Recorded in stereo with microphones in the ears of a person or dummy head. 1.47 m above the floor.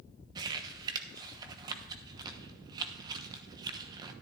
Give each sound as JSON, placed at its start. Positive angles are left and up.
{"t": 0.3, "sound": "crumpling", "side_deg": -25, "distance_m": 1.0}